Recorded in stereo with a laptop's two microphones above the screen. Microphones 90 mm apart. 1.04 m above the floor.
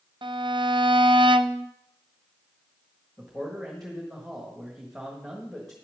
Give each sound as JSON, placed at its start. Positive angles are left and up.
{"t": 0.2, "sound": "a violin", "side_deg": -60, "distance_m": 0.6}
{"t": 3.2, "sound": "a man speaking", "side_deg": 0, "distance_m": 1.4}